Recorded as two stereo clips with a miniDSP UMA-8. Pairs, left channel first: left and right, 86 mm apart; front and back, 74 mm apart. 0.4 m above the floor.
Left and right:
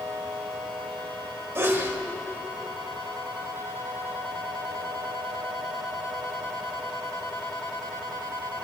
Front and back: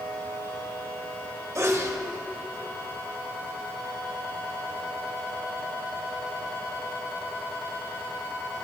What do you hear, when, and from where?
1.6 s a sneeze: 145° right, 1.2 m